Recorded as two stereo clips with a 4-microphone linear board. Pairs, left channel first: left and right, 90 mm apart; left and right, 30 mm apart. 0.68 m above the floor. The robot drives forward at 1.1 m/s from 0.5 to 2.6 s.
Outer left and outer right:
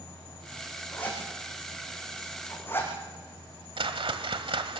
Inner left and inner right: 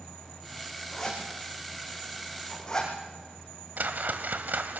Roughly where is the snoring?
No snoring in this recording.